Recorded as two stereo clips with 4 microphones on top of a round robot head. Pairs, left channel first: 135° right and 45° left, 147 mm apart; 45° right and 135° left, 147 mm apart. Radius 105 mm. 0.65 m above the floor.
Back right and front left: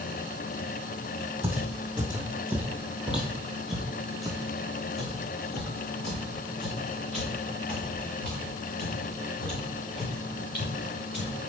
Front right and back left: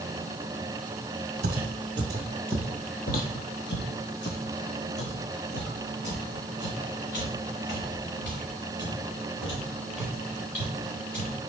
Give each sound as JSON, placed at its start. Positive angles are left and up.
{"t": 1.4, "sound": "footsteps", "azimuth_deg": 125, "distance_m": 0.9}